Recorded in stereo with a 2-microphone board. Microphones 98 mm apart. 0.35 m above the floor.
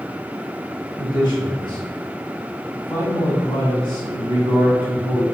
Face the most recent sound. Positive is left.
turn(degrees=55)  # may be behind; listen again after turning